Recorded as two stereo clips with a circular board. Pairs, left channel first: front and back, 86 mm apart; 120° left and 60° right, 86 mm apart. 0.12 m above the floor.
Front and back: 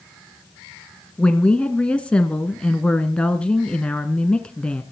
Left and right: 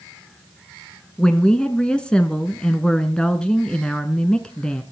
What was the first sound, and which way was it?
A woman speaking, 55° left.